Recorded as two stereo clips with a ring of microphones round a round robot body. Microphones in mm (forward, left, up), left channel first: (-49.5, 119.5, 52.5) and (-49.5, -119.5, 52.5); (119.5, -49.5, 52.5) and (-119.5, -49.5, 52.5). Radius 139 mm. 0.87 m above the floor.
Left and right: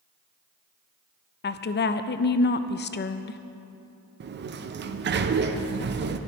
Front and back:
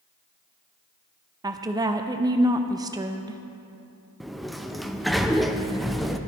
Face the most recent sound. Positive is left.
turn(degrees=-90)